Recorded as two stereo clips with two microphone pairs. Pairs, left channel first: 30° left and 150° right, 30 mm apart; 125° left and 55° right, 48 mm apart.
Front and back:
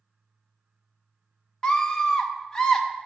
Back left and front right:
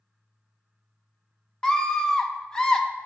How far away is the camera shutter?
No camera shutter in this recording.